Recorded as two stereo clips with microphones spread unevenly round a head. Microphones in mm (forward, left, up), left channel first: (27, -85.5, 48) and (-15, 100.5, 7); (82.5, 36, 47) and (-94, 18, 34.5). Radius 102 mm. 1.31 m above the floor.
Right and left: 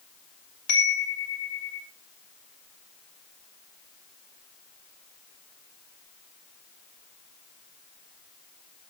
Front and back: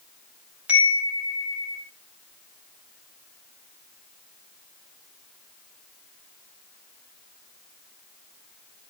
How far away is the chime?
About 7 m.